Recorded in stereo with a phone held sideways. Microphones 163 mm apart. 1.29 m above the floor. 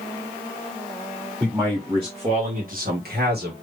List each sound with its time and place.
1.4 s a man speaking: 10° right (ahead or behind), 2 m; by 3.5 s 75° right (ahead or behind), 1.9 m